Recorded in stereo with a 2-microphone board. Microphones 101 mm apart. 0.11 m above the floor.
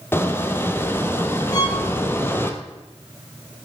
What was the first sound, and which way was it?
A squeak, 20° left (ahead or behind).